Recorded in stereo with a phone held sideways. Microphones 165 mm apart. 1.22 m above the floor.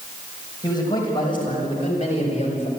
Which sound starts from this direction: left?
A man speaking, at 0.6 s.